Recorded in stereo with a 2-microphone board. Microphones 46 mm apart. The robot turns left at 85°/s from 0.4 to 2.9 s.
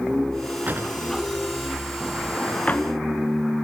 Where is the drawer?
40° right (ahead or behind), 2 m; by 2.9 s 50° left (ahead or behind), 2 m.